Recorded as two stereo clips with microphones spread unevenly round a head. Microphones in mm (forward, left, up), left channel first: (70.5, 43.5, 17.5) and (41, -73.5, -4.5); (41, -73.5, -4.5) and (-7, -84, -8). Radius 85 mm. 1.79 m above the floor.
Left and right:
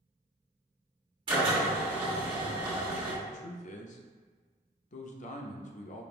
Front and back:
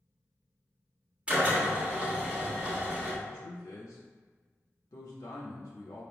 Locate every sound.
1.3 s a drill: 115° right, 1.3 m
3.2 s a man speaking: 55° left, 0.5 m